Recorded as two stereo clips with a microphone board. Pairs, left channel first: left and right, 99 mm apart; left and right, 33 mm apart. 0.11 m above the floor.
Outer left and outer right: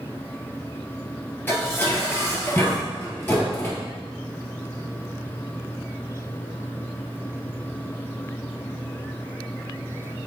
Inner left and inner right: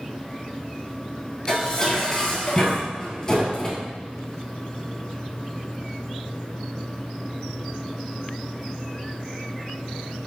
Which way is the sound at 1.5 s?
20° left (ahead or behind).